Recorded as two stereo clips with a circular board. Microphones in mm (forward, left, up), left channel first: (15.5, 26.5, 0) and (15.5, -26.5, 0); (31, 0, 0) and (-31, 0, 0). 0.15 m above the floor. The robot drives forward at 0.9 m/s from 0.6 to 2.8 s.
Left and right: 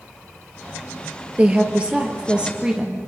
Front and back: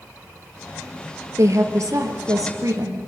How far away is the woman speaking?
About 2.5 m.